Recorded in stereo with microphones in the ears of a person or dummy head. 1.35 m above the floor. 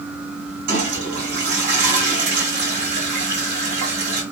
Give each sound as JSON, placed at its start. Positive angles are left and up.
{"t": 0.7, "sound": "a toilet flushing", "side_deg": -60, "distance_m": 3.0}